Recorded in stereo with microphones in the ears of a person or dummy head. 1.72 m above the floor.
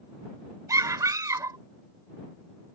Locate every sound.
0.7 s a scream: 15° right (ahead or behind)